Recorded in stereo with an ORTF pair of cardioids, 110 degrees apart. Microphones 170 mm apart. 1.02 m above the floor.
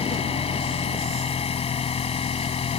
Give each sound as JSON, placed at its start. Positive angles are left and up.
{"t": 0.0, "sound": "an engine running", "azimuth_deg": 35}